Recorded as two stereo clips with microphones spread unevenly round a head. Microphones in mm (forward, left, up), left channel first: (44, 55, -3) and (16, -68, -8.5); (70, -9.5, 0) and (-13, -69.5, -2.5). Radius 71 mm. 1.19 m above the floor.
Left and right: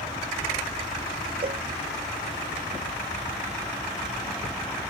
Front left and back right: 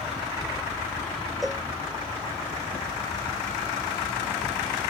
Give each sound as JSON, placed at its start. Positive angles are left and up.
{"t": 1.4, "sound": "a cowbell", "azimuth_deg": -55}